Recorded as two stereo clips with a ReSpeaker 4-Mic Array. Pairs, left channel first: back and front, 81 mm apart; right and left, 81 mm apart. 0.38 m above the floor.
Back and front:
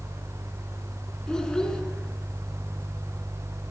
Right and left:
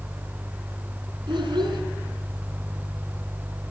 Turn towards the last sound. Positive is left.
turn(degrees=100)